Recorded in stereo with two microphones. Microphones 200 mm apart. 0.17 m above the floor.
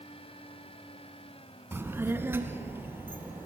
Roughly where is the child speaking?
Centre.